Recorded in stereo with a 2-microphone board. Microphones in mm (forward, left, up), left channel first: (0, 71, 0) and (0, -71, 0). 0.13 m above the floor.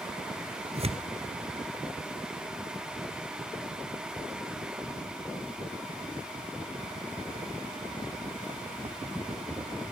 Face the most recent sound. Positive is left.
turn(degrees=-45)  # may be behind; listen again after turning